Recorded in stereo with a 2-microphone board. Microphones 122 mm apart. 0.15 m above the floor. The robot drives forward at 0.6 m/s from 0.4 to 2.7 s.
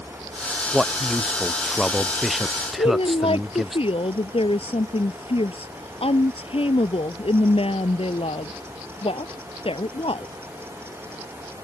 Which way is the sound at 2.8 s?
55° left (ahead or behind).